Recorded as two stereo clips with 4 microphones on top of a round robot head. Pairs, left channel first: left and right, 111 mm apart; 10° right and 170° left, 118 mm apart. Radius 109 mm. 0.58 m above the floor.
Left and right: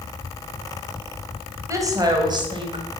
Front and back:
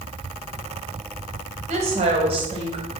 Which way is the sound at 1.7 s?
155° right.